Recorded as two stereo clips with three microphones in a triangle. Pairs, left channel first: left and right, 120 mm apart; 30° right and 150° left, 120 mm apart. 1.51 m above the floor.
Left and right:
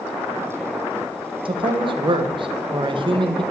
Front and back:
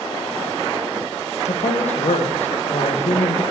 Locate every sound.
1.4 s a man speaking: 45° right, 1.2 m